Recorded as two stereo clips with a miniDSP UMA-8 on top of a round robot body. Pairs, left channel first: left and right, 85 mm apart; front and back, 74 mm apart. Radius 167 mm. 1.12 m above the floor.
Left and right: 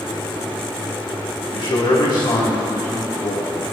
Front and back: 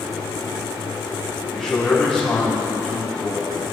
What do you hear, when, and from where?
1.5 s a man speaking: 85° left, 3 m